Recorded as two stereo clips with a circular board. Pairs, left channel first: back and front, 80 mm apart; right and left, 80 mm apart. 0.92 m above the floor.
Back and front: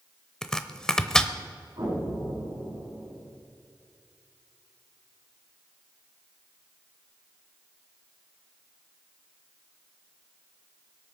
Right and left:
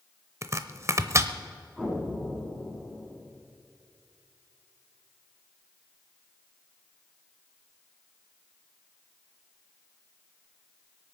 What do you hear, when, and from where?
0.4 s chopping: 105° left, 0.8 m
1.8 s an explosion: straight ahead, 6.5 m